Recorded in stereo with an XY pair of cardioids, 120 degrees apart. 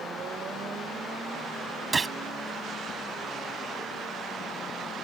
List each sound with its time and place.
1.9 s a gunshot: 20° right